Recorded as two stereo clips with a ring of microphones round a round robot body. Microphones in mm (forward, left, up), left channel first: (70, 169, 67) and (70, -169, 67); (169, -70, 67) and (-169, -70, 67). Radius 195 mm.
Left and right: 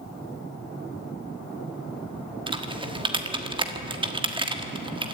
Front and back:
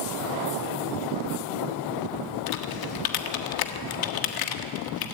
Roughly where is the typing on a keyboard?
Ahead.